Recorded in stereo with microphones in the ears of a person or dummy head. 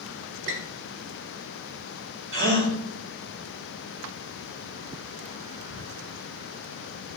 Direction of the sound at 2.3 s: 70° right (ahead or behind).